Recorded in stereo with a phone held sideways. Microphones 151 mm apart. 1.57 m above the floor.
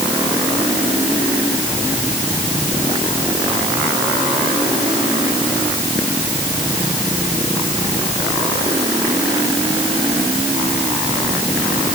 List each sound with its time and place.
Only background noise.